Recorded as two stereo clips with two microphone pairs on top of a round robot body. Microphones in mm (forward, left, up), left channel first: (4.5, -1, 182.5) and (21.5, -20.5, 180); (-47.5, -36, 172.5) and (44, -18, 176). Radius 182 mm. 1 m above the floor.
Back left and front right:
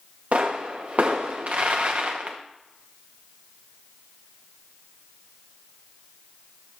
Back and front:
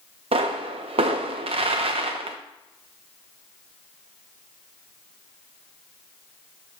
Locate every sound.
0.3 s a pop: 10° right, 0.6 m